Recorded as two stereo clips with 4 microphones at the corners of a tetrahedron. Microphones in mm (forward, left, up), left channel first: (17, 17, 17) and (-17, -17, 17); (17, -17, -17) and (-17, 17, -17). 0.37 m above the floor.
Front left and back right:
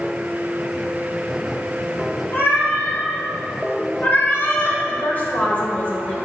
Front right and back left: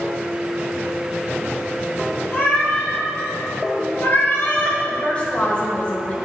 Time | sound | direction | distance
2.3 | a cat meowing | straight ahead | 3 m
4.9 | a woman speaking | 5° left | 2.0 m